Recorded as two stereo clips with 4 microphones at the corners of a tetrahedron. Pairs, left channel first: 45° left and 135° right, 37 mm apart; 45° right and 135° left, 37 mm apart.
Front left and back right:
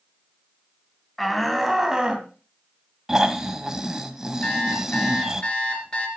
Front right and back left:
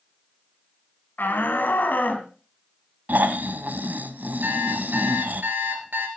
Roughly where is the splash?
No splash in this recording.